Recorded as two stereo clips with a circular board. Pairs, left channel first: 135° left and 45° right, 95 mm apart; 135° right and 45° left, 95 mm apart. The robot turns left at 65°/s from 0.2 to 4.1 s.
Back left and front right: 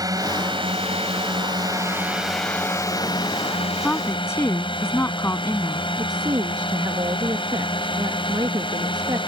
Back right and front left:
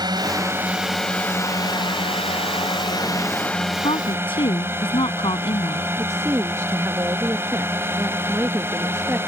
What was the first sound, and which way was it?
A drone, 5° left.